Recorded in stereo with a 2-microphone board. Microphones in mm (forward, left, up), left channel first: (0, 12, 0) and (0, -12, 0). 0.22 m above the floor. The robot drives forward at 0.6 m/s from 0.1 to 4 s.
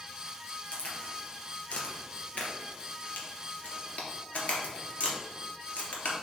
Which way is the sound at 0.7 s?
55° left (ahead or behind).